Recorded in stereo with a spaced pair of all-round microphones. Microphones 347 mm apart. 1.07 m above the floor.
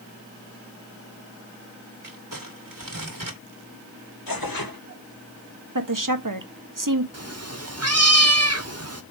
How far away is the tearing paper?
About 1.9 m.